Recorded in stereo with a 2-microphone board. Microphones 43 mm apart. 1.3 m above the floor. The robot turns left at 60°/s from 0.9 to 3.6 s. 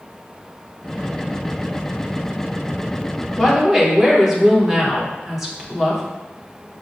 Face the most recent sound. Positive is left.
turn(degrees=-15)  # may be behind; listen again after turning